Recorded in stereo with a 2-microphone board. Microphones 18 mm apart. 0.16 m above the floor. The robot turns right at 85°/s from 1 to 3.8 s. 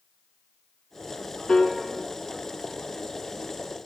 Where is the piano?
50° left (ahead or behind), 0.5 m; by 1.8 s 55° left (ahead or behind), 0.5 m.